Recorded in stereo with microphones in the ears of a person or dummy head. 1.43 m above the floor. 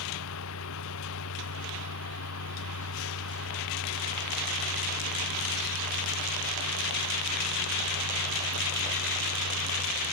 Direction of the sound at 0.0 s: 75° left (ahead or behind).